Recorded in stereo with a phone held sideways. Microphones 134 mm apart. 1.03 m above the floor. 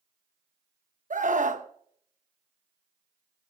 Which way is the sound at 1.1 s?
65° right (ahead or behind).